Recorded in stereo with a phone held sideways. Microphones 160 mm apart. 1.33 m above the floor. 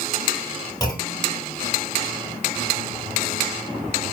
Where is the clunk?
20° left (ahead or behind), 3 m.